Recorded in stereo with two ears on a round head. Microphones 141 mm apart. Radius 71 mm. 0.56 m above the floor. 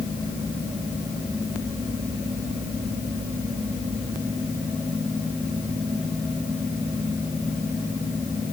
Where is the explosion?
I don't hear an explosion.